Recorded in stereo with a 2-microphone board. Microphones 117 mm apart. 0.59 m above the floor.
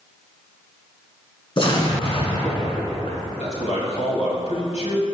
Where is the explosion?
50° left (ahead or behind), 2 m.